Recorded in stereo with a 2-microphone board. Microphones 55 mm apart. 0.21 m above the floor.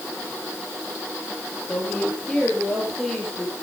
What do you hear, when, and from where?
1.7 s a woman speaking: 15° left (ahead or behind), 6.5 m; by 3.6 s 5° left (ahead or behind), 8.5 m